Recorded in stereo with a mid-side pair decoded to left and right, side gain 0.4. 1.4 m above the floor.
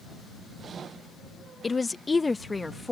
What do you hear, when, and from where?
1.6 s a woman speaking: 30° left; by 2.9 s 20° left